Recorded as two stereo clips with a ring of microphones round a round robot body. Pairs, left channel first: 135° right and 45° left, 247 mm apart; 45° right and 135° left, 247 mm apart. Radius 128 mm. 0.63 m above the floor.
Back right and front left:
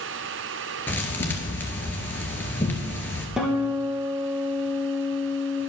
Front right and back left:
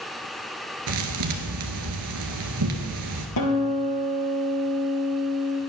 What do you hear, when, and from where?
0.9 s a thud: 145° left, 1.8 m
3.4 s a guitar: 40° right, 2.5 m